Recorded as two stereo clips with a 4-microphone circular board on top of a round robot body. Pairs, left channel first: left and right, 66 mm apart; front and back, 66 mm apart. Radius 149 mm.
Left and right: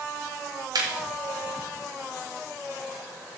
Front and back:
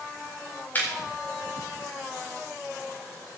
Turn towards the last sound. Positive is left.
turn(degrees=-65)